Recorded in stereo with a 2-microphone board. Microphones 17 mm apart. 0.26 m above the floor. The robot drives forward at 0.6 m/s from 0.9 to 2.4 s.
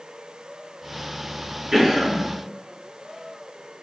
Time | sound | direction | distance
1.7 | a cough | 45° right (ahead or behind) | 2.0 m